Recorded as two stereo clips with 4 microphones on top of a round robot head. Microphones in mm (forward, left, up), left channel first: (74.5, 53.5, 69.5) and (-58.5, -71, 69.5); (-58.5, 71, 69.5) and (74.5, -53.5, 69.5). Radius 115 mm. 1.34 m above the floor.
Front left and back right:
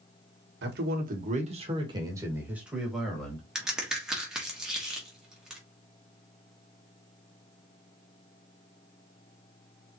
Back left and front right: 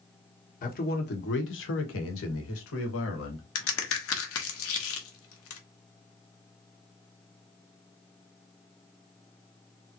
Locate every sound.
0.6 s a man speaking: 170° right, 1.3 m; by 3.5 s 130° left, 2 m
3.5 s a crack: 135° left, 1.4 m